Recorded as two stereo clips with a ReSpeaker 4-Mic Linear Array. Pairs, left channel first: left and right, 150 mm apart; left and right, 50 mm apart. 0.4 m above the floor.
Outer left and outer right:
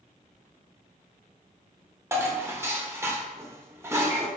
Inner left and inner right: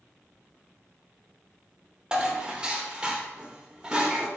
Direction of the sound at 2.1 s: 20° right (ahead or behind).